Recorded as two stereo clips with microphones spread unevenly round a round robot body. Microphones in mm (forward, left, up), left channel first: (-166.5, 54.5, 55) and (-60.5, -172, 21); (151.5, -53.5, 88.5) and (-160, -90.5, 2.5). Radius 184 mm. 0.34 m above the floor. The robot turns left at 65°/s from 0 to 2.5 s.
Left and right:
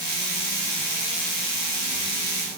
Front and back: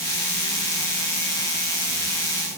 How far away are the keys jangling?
I don't hear keys jangling.